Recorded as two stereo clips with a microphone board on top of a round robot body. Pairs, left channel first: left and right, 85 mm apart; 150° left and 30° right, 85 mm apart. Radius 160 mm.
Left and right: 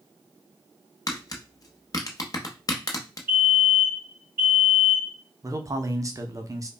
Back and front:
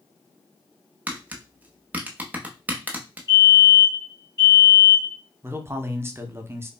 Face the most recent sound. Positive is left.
turn(degrees=-75)